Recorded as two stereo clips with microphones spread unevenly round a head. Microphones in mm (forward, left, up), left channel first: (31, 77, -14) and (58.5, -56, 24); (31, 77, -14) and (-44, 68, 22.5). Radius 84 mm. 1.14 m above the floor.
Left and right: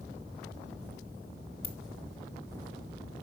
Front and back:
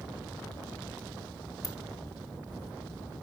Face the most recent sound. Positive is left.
turn(degrees=50)